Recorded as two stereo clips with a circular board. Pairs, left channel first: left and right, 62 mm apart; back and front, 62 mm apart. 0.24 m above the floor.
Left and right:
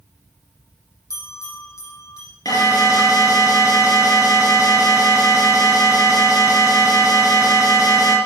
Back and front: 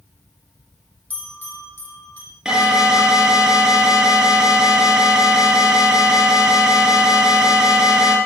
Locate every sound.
1.1 s a bell: 125° left, 8 m
2.5 s an alarm: 80° left, 7.5 m